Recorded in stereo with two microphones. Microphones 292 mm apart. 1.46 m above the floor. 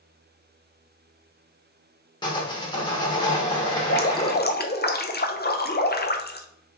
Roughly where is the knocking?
I don't hear knocking.